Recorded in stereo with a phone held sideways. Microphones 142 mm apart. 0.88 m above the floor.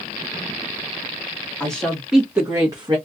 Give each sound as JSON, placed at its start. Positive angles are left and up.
{"t": 1.6, "sound": "a woman speaking", "side_deg": 5, "distance_m": 1.4}